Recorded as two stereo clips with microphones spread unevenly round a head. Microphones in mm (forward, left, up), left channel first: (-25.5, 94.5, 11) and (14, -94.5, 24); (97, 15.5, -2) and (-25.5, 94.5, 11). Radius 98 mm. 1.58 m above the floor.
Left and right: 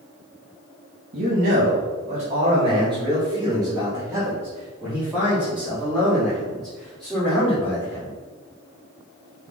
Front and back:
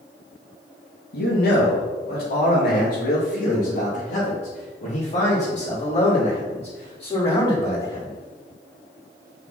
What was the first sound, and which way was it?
A man speaking, 35° right.